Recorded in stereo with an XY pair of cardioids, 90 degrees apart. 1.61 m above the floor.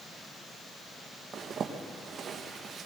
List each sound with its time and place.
1.3 s a zipper: 65° right, 1.4 m